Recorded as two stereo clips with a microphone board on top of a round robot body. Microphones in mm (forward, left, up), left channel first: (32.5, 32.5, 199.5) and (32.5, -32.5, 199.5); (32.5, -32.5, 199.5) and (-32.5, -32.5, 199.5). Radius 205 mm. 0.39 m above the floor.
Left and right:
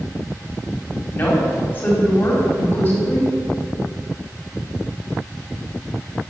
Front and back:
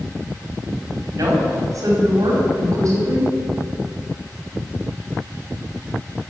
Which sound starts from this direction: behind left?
A woman speaking, at 1.1 s.